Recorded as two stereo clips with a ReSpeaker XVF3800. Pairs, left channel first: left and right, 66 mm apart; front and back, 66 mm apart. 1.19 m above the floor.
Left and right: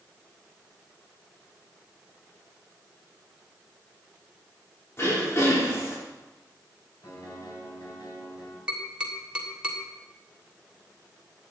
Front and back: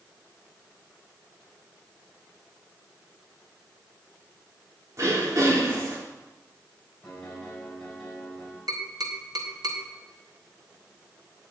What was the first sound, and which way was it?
Throat clearing, 140° left.